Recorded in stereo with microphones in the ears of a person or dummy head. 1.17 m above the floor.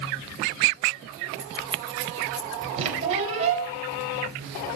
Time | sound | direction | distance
1.4 | keys jangling | 15° right (ahead or behind) | 2.0 m
2.8 | a squeak | 40° right (ahead or behind) | 4.5 m